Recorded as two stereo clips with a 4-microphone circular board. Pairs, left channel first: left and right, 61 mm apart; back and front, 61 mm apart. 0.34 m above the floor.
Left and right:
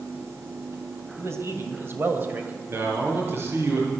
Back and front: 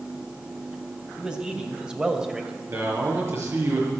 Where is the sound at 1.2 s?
70° right, 2.5 m; by 2.6 s 65° right, 1.8 m.